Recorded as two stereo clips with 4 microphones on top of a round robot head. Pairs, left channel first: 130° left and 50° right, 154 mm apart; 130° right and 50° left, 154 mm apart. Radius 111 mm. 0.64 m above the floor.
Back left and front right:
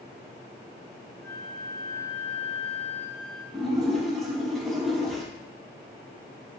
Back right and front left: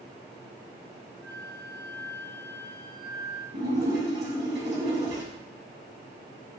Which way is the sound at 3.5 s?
40° left.